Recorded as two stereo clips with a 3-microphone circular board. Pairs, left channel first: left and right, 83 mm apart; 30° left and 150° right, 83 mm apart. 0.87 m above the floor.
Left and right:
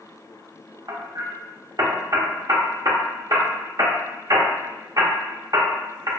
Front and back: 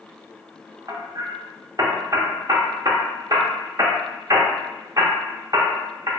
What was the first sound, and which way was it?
Hammering, 120° right.